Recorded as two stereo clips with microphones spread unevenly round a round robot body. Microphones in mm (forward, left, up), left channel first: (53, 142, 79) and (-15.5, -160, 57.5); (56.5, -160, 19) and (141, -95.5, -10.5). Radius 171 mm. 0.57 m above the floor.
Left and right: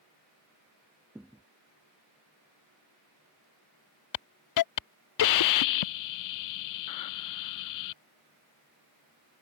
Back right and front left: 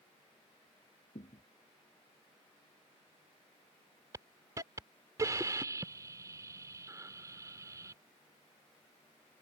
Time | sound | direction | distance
1.1 | a thud | 170° left | ?
4.1 | a hiss | 95° left | ?